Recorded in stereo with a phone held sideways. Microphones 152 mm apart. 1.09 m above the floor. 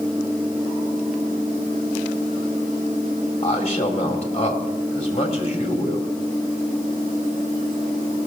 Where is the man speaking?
45° left (ahead or behind), 3 m.